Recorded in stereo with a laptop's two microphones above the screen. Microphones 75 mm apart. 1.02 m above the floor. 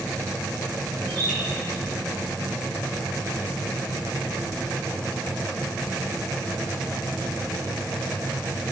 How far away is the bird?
About 5 m.